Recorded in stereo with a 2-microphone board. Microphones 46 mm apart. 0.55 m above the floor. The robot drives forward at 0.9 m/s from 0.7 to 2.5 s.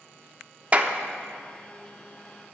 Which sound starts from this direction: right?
A clap, at 0.7 s.